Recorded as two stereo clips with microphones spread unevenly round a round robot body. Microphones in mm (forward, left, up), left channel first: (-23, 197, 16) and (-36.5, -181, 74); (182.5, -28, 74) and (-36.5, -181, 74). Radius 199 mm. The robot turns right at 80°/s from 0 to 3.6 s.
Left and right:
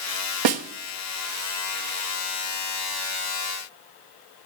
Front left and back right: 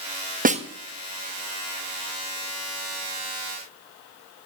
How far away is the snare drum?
About 1.4 m.